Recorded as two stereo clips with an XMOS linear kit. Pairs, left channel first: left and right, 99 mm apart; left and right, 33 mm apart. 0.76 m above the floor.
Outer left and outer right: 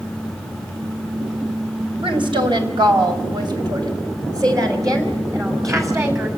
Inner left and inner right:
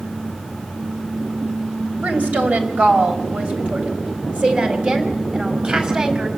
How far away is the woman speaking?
About 3.5 m.